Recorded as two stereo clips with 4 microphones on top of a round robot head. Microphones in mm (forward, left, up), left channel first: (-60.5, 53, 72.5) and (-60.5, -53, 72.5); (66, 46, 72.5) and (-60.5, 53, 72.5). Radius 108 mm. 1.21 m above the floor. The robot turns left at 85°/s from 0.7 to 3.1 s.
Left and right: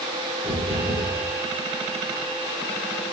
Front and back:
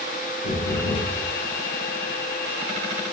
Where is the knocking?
20° right, 4 m; by 1.2 s 60° right, 4 m.